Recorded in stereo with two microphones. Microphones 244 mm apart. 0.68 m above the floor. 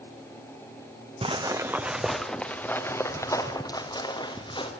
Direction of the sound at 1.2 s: 25° right (ahead or behind).